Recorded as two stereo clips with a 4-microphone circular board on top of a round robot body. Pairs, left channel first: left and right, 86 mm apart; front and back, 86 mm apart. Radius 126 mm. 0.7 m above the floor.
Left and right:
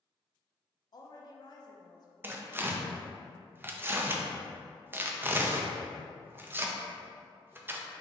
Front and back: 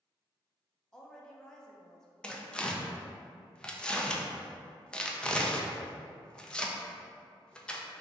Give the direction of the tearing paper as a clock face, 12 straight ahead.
2 o'clock.